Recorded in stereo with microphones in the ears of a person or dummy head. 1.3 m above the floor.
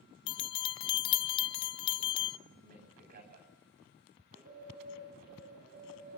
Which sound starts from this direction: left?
A bell, at 0.3 s.